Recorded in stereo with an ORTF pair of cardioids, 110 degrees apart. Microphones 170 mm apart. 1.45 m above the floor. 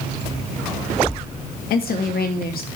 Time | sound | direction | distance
1.7 | a woman speaking | 60° left | 2.5 m